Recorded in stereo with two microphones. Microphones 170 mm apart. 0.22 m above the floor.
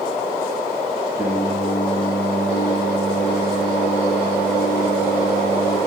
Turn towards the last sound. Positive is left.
turn(degrees=25)  # may be behind; listen again after turning